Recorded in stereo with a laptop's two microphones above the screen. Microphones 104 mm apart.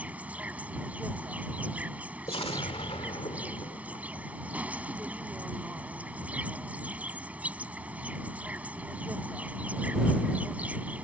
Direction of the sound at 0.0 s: 15° right (ahead or behind).